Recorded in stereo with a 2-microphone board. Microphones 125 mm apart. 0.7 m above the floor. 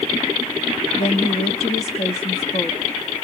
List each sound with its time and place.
1.0 s a woman speaking: 50° left (ahead or behind), 1.0 m